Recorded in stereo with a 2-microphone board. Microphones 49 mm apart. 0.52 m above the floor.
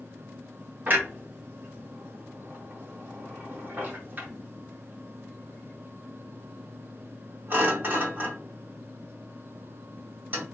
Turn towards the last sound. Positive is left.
turn(degrees=-40)  # may be behind; listen again after turning